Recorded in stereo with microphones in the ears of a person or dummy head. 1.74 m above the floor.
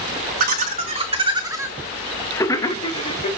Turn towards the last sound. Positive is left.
turn(degrees=40)  # may be behind; listen again after turning